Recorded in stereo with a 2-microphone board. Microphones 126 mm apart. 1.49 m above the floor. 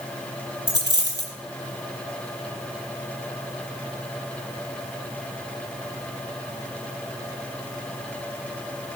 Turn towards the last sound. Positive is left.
turn(degrees=20)  # may be behind; listen again after turning